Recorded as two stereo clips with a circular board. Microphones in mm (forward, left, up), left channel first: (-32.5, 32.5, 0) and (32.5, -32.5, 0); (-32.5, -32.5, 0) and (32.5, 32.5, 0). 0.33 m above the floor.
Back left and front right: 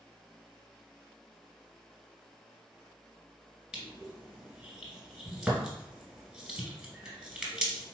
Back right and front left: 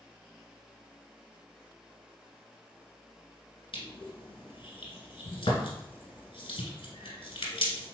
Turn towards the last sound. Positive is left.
turn(degrees=-125)